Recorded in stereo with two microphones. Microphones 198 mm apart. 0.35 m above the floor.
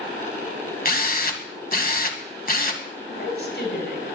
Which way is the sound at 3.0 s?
60° left (ahead or behind).